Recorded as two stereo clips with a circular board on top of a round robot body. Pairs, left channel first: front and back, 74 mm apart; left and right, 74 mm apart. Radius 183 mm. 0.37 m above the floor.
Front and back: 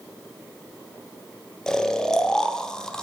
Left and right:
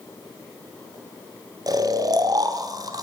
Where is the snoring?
80° right, 1.1 m.